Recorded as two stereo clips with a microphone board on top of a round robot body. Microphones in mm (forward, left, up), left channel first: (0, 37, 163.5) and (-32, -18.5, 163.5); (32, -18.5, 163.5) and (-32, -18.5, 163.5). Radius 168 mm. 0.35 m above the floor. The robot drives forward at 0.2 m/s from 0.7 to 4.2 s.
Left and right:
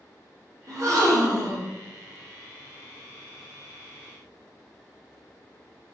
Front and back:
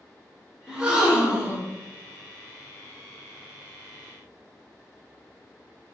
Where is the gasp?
100° right, 0.8 m; by 1.7 s 120° right, 0.9 m.